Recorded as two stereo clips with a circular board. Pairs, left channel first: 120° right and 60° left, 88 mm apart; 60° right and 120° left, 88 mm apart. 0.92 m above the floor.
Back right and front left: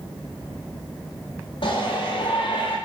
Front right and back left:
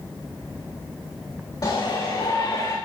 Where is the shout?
100° right, 4 m; by 2.8 s 110° right, 4 m.